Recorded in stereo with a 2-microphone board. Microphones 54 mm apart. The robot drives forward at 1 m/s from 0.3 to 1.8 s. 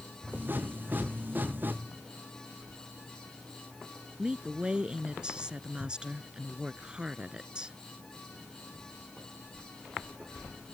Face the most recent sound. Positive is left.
turn(degrees=-20)  # may be behind; listen again after turning